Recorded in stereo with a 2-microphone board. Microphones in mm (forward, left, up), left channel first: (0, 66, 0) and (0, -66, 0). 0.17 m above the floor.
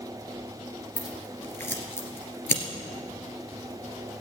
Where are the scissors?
20° left (ahead or behind), 2 m.